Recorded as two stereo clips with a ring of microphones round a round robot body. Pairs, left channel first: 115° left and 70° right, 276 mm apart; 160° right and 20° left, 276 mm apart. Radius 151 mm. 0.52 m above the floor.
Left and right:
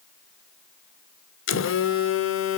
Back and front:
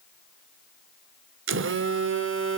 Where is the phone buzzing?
70° left, 1.4 m.